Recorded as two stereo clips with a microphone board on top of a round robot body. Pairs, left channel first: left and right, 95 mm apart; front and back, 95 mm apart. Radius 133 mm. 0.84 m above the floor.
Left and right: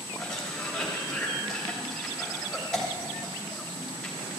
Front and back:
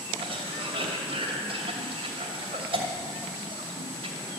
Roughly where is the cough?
Behind.